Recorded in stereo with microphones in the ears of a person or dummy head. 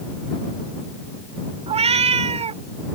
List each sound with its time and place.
1.7 s a cat meowing: 30° right (ahead or behind)